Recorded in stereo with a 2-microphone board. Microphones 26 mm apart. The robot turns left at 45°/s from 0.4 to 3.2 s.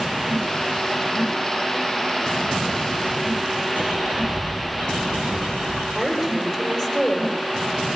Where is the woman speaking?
5° left (ahead or behind), 7 m.